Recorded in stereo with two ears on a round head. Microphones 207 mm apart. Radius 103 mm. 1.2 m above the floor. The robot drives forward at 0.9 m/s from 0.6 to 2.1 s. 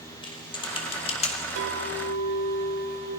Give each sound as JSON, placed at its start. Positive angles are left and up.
{"t": 0.2, "sound": "typing on a keyboard", "side_deg": 20, "distance_m": 2.5}
{"t": 1.6, "sound": "a clink", "side_deg": -70, "distance_m": 4.0}